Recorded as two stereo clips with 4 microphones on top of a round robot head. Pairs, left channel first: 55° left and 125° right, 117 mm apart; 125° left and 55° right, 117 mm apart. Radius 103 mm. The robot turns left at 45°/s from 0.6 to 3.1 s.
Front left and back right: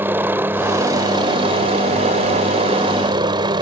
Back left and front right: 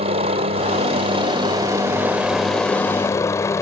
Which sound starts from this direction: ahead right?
A helicopter, at 0.0 s.